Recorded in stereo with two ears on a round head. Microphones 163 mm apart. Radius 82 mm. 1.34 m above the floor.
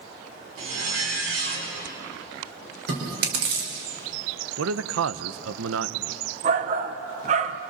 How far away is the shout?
About 1.0 m.